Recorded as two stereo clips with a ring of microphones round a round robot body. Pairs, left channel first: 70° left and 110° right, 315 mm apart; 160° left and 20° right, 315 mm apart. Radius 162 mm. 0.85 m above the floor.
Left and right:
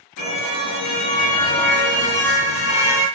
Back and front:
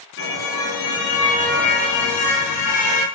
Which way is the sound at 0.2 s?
105° left.